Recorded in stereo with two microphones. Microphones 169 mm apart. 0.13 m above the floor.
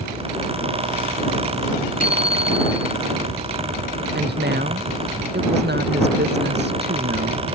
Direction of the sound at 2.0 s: 50° left (ahead or behind).